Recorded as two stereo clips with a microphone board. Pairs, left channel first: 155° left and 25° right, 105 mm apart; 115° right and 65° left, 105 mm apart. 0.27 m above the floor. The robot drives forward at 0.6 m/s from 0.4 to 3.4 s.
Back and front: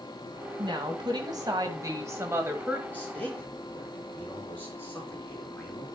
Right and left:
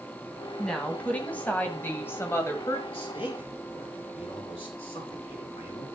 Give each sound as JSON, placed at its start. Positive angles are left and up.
{"t": 0.6, "sound": "a woman speaking", "azimuth_deg": -35, "distance_m": 2.0}
{"t": 2.9, "sound": "a man speaking", "azimuth_deg": -130, "distance_m": 4.0}